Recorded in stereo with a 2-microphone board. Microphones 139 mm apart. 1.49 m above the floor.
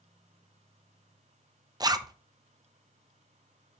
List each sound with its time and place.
1.8 s a zipper: 30° right (ahead or behind), 0.6 m